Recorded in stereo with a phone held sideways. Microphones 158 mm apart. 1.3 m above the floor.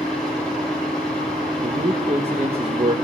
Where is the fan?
5° left (ahead or behind), 4.5 m.